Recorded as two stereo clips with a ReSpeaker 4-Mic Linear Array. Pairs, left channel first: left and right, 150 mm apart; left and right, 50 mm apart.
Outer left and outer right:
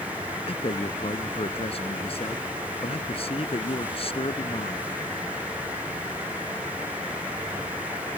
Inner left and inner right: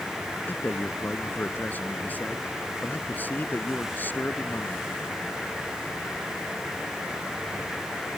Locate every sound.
0.5 s a man speaking: 40° left (ahead or behind)